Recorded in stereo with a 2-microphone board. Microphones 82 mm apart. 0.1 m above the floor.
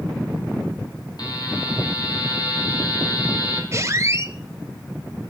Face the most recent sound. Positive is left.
turn(degrees=-35)  # may be behind; listen again after turning